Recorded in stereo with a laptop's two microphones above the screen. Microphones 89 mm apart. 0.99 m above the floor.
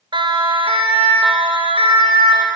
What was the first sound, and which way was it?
A siren, 65° right (ahead or behind).